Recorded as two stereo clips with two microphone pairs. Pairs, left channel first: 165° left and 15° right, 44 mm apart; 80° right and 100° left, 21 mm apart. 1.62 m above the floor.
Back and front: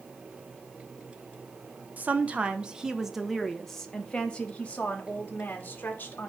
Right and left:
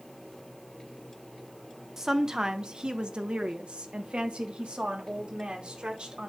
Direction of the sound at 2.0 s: 30° left.